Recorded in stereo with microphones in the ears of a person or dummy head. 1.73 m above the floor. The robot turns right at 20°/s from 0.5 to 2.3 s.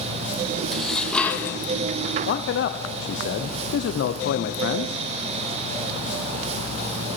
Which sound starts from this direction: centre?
Dishes clattering, at 0.7 s.